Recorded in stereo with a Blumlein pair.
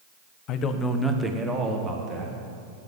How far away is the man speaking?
About 1.2 m.